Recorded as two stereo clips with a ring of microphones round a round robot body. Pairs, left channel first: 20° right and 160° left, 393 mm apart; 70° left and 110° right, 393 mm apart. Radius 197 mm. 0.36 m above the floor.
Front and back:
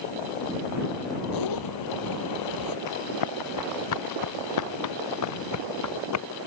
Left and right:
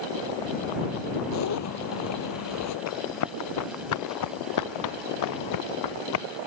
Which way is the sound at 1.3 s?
15° left.